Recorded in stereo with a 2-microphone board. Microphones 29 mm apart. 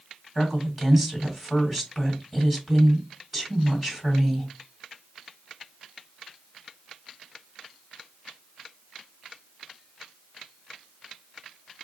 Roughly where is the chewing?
No chewing in this recording.